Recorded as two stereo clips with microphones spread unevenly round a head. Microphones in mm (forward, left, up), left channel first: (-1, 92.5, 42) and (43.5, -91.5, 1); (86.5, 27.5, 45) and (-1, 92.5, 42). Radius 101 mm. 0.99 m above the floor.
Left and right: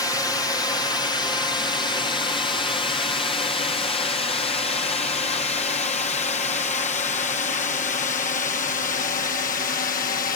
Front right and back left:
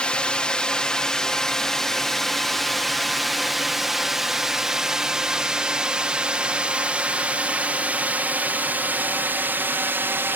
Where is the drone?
30° left; by 10.4 s 95° left.